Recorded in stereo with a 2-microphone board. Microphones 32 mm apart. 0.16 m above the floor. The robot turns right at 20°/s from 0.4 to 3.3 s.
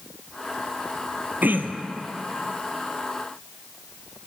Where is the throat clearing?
80° right, 0.5 m; by 2.0 s 85° right, 0.5 m.